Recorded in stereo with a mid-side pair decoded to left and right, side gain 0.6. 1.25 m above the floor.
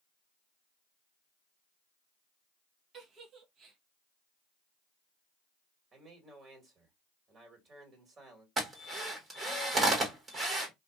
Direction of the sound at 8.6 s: 25° right.